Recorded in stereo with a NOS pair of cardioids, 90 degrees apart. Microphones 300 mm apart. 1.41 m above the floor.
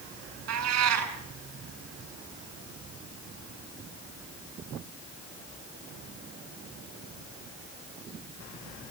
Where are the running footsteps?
I don't hear running footsteps.